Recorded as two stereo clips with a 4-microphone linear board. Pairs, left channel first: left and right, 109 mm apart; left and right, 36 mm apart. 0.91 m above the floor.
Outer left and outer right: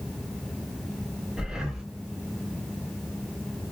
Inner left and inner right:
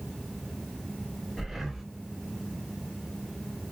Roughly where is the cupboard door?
No cupboard door in this recording.